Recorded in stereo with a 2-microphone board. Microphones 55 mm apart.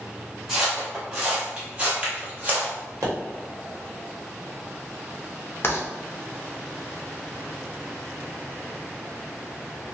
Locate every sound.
0.5 s footsteps: 10° right (ahead or behind), 1.7 m; by 2.7 s 30° right (ahead or behind), 1.6 m
3.0 s a pop: 75° right (ahead or behind), 1.0 m
5.6 s writing: 45° left (ahead or behind), 0.7 m